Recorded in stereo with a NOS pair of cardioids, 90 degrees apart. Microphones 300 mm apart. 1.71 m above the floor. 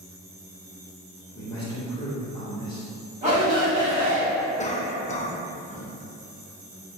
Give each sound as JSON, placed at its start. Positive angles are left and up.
{"t": 1.4, "sound": "a man speaking", "azimuth_deg": 15, "distance_m": 0.8}
{"t": 3.2, "sound": "a shout", "azimuth_deg": -25, "distance_m": 1.6}
{"t": 4.6, "sound": "a cough", "azimuth_deg": 25, "distance_m": 0.6}